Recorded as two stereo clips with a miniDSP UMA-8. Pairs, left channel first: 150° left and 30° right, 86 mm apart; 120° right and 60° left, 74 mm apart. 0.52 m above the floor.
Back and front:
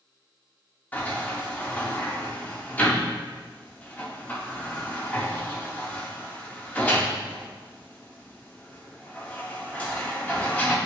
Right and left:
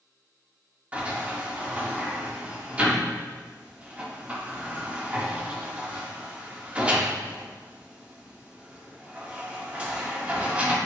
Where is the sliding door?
105° left, 1.2 m.